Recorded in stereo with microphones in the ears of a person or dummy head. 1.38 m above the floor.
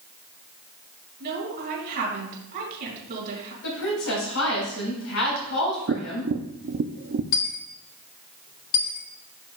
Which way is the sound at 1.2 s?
55° right (ahead or behind).